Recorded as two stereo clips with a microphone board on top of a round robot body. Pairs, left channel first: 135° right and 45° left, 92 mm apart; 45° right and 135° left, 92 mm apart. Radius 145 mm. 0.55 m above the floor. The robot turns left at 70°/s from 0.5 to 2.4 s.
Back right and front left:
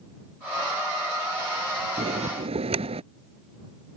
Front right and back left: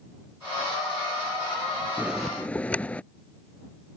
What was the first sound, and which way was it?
A bell, 60° left.